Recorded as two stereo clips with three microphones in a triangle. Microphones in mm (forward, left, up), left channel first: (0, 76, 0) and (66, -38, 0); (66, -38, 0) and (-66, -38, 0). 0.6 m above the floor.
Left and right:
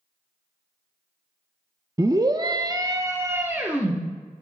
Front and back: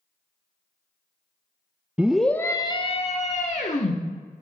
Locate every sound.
2.0 s a scream: 105° right, 0.8 m; by 4.0 s 15° left, 1.5 m